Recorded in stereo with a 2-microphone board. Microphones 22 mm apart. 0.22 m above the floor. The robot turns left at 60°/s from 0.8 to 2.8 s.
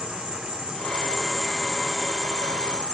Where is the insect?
130° right, 0.9 m; by 2.9 s 110° left, 0.9 m.